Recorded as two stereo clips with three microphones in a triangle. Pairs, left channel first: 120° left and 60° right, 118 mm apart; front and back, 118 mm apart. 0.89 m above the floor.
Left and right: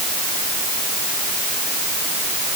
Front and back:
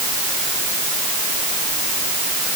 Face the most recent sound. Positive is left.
No sound to turn to.